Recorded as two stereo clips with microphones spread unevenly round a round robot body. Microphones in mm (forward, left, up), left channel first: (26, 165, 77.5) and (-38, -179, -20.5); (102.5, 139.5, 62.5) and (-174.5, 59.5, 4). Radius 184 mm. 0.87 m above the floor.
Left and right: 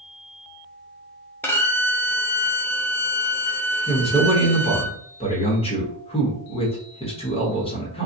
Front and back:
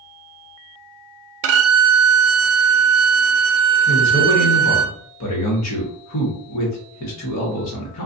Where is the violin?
170° left, 0.6 m.